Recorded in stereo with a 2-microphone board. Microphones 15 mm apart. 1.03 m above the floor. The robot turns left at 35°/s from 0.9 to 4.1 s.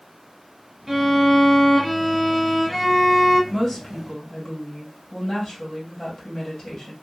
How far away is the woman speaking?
About 1.6 m.